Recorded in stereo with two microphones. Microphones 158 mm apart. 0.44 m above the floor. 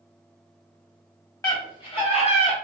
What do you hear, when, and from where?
1.4 s a scream: 25° left (ahead or behind), 1.4 m; by 2.5 s 45° left (ahead or behind), 1.3 m